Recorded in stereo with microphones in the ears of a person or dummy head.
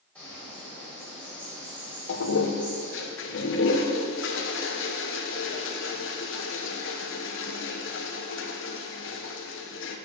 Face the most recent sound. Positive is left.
turn(degrees=60)  # may be behind; listen again after turning